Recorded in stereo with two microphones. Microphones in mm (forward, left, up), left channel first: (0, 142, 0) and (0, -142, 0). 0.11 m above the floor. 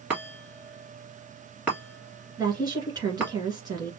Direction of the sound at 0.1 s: 5° right (ahead or behind).